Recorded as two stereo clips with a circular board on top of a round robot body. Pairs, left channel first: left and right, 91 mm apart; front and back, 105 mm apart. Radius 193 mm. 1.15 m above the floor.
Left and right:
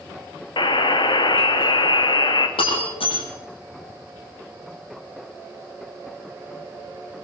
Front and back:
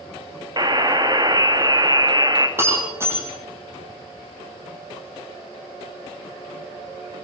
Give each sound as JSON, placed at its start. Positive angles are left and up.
{"t": 0.6, "sound": "a buzzer", "azimuth_deg": 125, "distance_m": 2.0}
{"t": 2.6, "sound": "breaking glass", "azimuth_deg": 110, "distance_m": 9.5}